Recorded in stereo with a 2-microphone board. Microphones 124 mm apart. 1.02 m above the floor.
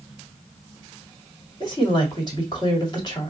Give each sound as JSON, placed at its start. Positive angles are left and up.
{"t": 1.6, "sound": "a woman speaking", "side_deg": 35, "distance_m": 1.9}